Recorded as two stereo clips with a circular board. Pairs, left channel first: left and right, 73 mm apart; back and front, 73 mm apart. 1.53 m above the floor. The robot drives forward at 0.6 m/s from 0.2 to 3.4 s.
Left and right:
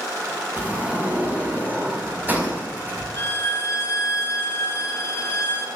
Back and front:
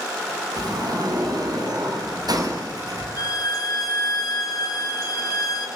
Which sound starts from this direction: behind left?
A violin, at 3.2 s.